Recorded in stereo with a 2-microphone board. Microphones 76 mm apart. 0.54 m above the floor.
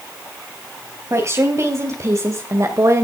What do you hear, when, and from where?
1.1 s a woman speaking: 40° right (ahead or behind), 3.5 m; by 3.0 s 45° right (ahead or behind), 2 m